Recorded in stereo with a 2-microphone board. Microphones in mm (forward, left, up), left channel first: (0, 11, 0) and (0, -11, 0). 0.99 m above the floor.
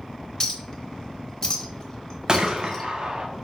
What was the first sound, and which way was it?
A clink, 25° left (ahead or behind).